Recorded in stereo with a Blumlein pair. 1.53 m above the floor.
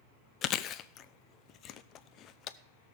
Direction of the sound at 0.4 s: 30° left.